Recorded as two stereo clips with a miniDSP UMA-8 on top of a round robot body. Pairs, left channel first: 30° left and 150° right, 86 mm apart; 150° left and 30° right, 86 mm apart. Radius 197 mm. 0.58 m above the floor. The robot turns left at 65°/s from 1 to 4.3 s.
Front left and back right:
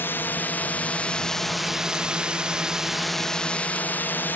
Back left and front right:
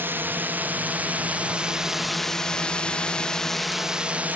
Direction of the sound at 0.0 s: Straight ahead.